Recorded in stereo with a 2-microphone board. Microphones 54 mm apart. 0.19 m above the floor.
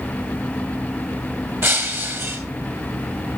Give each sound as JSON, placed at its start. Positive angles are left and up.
{"t": 1.6, "sound": "breaking glass", "side_deg": -50, "distance_m": 1.8}